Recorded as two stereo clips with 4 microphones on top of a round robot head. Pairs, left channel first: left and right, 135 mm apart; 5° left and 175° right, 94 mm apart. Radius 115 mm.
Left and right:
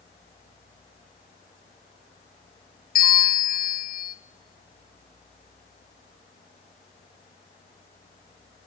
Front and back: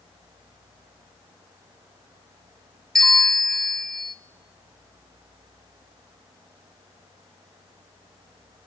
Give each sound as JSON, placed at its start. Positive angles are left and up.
{"t": 3.0, "sound": "a bell", "azimuth_deg": 90, "distance_m": 0.9}